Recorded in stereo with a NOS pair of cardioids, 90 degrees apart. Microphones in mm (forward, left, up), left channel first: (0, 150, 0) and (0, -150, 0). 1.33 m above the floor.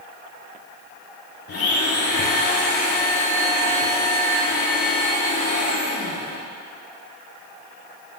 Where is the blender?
50° left, 3.5 m.